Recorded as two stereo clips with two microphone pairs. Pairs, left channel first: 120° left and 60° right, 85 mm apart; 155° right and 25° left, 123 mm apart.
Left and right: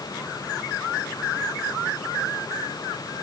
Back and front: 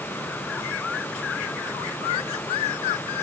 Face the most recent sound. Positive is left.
No sound to turn to.